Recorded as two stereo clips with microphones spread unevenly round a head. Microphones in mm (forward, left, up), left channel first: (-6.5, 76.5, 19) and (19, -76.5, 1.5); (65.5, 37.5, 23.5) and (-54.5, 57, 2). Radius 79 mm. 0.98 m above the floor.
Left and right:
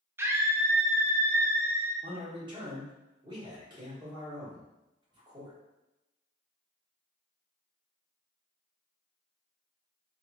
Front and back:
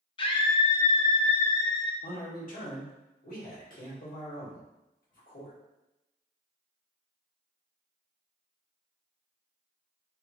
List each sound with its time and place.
0.2 s a scream: 30° right, 0.5 m
2.0 s a man speaking: 25° right, 1.4 m